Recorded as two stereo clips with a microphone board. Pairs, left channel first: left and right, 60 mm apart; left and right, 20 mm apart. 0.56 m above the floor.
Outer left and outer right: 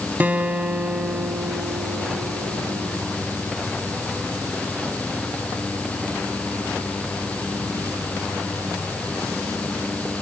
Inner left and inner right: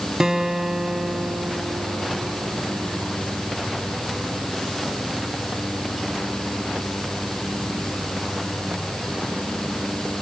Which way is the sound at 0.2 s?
30° right (ahead or behind).